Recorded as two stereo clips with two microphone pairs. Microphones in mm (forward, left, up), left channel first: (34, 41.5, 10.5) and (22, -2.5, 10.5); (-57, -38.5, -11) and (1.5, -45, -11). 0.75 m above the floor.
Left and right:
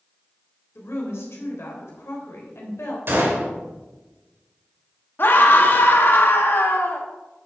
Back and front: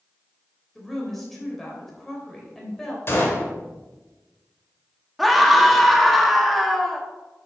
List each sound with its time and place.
0.8 s a woman speaking: 90° left, 3 m
3.1 s a gunshot: 140° right, 2.5 m
5.2 s a scream: 85° left, 1.5 m